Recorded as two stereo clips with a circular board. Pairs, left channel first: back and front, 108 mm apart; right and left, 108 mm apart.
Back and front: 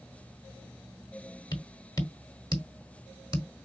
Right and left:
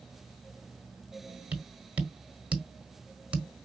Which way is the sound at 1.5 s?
160° left.